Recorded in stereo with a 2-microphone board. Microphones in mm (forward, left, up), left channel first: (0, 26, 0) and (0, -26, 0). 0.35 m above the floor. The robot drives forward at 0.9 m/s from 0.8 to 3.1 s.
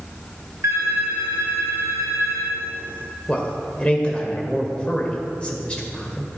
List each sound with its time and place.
0.6 s a phone ringing: 65° right (ahead or behind), 3.5 m; by 2.6 s 75° right (ahead or behind), 3 m
3.3 s a man speaking: 20° left (ahead or behind), 1.5 m